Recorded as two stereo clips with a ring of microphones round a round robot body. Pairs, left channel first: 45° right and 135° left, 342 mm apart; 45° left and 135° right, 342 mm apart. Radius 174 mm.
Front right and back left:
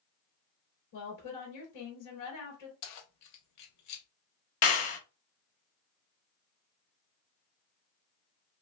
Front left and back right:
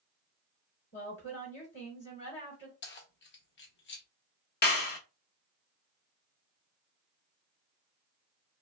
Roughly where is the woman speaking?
Ahead.